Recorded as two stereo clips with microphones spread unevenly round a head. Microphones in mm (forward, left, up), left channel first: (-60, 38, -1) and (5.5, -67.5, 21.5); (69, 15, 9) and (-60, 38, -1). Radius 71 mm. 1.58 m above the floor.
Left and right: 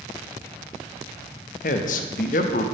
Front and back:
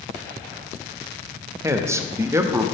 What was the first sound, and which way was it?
A man speaking, 100° left.